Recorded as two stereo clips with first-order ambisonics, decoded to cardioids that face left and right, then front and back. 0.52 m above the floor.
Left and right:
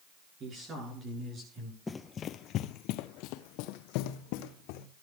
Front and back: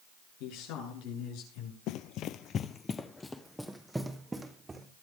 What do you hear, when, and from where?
0.4 s a man speaking: 25° right, 9 m; by 1.8 s 20° right, 9 m
1.9 s running footsteps: 15° left, 0.8 m; by 4.9 s 100° left, 2 m